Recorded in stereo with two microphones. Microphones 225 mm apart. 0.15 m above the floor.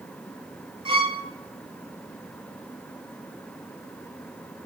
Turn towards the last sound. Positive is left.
turn(degrees=-20)  # may be behind; listen again after turning